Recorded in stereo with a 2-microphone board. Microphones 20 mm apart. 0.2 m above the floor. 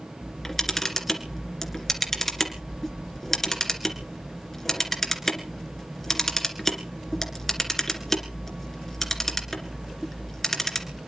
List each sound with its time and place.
0.2 s a camera shutter: 20° left (ahead or behind), 2 m